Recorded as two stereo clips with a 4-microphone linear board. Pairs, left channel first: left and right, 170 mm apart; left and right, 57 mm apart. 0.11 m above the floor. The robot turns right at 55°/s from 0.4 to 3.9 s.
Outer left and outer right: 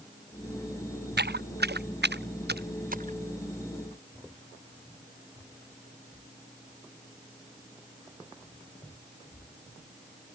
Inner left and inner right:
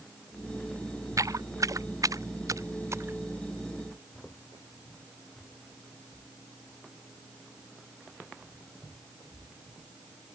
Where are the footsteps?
75° right (ahead or behind); by 3.2 s 45° right (ahead or behind).